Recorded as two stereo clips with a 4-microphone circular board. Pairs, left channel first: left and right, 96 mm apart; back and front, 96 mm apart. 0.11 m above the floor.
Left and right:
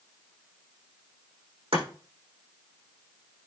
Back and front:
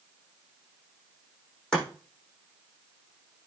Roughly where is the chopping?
Right.